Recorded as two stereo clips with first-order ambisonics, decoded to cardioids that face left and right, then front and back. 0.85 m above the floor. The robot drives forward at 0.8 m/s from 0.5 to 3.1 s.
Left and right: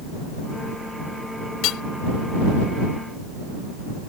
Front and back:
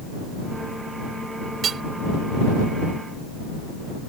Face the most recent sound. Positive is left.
turn(degrees=140)